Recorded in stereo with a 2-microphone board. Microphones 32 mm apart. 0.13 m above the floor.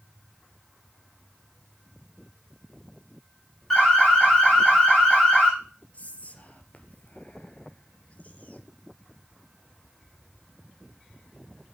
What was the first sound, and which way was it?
An alarm, 10° left (ahead or behind).